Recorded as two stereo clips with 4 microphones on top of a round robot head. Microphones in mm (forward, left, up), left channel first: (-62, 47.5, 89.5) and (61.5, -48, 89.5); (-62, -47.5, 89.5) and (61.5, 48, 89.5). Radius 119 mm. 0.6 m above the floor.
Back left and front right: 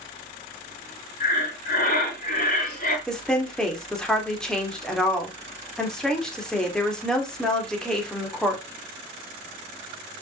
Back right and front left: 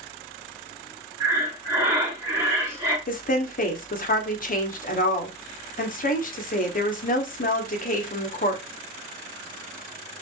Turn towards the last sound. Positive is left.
turn(degrees=-135)